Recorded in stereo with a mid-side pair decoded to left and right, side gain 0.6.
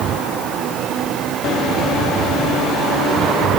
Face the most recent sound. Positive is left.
No sound to turn to.